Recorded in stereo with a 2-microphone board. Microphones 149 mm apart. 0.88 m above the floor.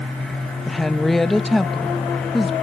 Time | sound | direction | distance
0.7 | a woman speaking | centre (ahead or behind) | 0.5 m